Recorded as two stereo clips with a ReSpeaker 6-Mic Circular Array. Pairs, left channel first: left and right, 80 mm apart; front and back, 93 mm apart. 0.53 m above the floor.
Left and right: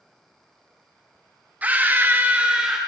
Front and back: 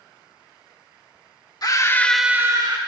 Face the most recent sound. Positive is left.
turn(degrees=-165)